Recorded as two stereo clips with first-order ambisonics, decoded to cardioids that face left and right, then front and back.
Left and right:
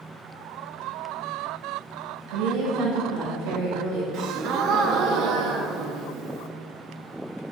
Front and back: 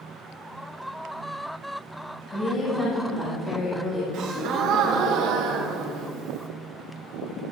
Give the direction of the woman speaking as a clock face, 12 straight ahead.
2 o'clock.